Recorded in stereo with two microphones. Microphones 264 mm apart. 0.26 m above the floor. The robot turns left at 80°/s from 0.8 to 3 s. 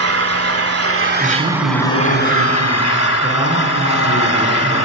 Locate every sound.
0.0 s an engine running: 110° right, 1.0 m; by 4.9 s 75° left, 1.0 m
1.2 s a man speaking: 5° right, 4 m; by 4.8 s 150° right, 4 m